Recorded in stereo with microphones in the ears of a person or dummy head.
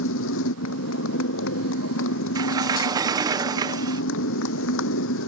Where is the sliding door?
20° right (ahead or behind).